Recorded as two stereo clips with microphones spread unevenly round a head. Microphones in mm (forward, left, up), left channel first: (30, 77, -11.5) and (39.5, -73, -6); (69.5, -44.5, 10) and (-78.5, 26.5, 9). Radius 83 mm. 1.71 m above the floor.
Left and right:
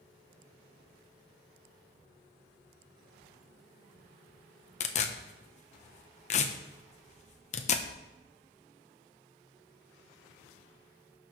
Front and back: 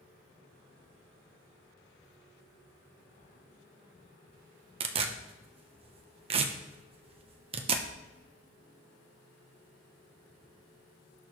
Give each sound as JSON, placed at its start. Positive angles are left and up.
{"t": 4.8, "sound": "tearing paper", "azimuth_deg": 115, "distance_m": 0.9}